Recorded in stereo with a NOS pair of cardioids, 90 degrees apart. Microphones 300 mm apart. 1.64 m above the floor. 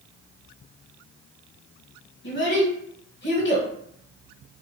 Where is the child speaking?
40° left, 1.4 m.